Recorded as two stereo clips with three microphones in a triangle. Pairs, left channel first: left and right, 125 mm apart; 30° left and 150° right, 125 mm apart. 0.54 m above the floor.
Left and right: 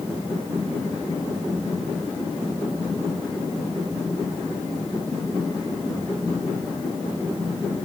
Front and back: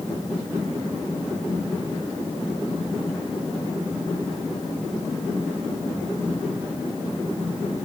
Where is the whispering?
No whispering in this recording.